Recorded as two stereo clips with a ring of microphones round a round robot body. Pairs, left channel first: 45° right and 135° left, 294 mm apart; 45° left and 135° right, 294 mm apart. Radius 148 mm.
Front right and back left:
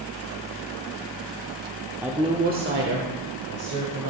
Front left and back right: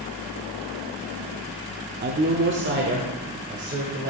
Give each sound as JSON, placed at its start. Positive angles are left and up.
{"t": 2.0, "sound": "a woman speaking", "azimuth_deg": -145, "distance_m": 0.8}